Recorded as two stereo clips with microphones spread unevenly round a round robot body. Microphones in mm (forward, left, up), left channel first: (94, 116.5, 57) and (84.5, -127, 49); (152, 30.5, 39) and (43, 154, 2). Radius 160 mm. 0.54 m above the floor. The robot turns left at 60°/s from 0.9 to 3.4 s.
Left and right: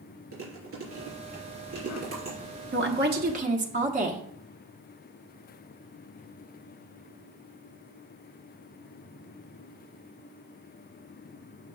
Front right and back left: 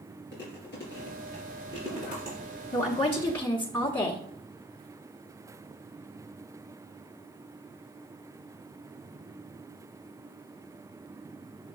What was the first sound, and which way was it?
Chewing, 60° right.